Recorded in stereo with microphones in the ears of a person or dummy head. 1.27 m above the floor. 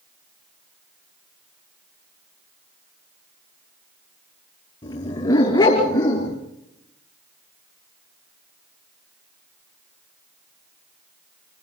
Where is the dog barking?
25° left (ahead or behind), 5 m; by 6.4 s 15° left (ahead or behind), 5.5 m.